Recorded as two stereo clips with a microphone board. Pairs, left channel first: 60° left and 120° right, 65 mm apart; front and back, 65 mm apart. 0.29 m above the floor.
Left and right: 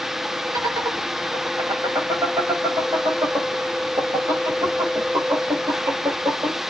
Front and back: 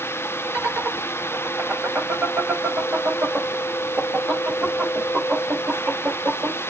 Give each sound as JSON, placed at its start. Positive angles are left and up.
{"t": 0.5, "sound": "laughter", "azimuth_deg": -120, "distance_m": 6.5}